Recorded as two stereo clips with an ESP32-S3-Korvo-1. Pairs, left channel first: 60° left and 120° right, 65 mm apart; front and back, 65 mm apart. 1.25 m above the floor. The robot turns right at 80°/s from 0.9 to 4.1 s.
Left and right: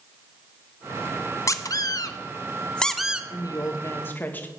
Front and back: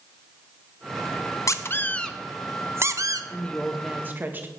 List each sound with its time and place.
1.5 s a squeak: 30° left, 0.8 m; by 3.2 s 165° left, 0.8 m
3.3 s a woman speaking: 55° left, 1.8 m; by 4.5 s 120° left, 1.8 m